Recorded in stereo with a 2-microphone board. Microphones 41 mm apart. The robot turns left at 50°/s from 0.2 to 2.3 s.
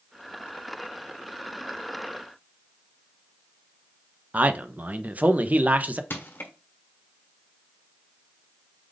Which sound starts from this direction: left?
Crushing, at 6.1 s.